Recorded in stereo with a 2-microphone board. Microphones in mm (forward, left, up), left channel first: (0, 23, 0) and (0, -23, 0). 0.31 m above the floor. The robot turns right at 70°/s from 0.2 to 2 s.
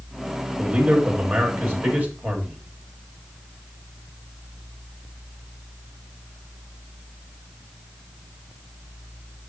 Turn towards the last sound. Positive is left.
turn(degrees=-60)